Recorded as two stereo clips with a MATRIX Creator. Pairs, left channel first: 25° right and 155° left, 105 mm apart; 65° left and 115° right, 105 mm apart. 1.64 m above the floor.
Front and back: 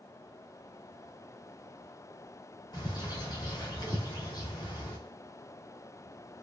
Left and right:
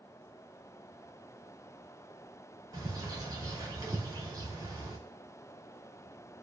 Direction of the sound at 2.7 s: 65° right.